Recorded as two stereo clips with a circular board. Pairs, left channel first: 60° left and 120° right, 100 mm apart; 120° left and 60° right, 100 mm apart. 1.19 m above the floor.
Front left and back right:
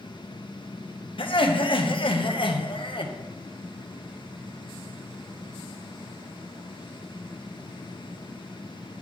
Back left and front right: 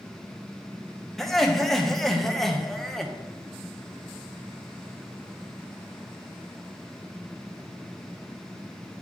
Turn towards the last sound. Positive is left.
turn(degrees=30)